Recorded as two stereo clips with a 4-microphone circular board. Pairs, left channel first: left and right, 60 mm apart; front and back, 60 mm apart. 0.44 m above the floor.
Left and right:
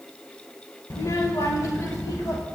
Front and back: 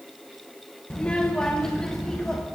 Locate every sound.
0.9 s a child speaking: 70° left, 0.8 m; by 2.4 s 80° left, 1.5 m